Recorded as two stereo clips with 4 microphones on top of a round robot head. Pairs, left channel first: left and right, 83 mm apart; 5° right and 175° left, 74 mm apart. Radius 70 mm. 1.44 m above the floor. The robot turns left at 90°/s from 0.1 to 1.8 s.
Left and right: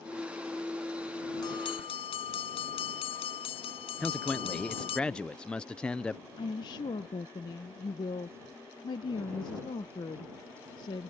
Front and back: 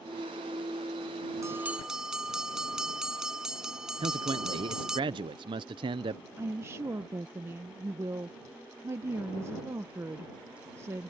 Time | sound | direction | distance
1.4 | a bell | 130° left | ?
4.0 | a man speaking | 170° left | ?
6.4 | a woman speaking | 125° left | ?